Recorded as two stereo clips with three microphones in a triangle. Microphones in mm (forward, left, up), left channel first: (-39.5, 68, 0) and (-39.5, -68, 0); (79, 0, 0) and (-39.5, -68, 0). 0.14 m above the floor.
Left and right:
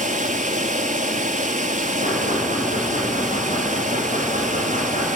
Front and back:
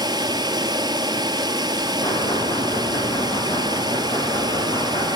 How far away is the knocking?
About 6.5 m.